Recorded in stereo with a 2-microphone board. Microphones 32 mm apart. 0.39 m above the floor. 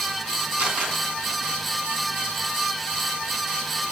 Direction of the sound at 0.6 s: 50° right (ahead or behind).